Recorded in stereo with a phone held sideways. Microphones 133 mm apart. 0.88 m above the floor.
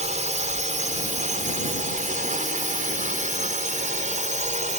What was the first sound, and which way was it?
A drone, 60° right (ahead or behind).